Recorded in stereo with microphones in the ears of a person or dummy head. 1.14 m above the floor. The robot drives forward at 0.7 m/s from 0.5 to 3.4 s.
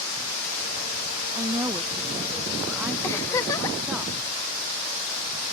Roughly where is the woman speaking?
Right.